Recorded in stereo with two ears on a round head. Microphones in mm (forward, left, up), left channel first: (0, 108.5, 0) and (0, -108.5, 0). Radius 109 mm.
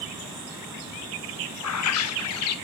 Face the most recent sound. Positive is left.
turn(degrees=70)  # may be behind; listen again after turning